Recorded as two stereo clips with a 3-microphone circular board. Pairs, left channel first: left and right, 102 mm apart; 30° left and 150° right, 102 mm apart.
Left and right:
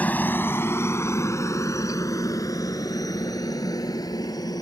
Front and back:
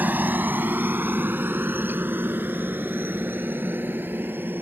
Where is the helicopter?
150° left; by 4.6 s 140° left.